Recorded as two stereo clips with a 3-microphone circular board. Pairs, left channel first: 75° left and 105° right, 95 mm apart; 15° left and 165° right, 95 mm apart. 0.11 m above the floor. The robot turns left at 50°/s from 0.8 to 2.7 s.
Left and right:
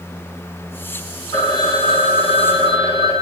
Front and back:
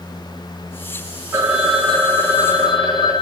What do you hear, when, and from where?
1.3 s a phone ringing: 130° left, 3.5 m; by 3.2 s 60° left, 3.5 m